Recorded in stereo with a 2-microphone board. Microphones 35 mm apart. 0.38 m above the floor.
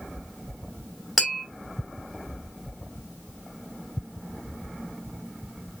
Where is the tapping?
5° left (ahead or behind), 3 m.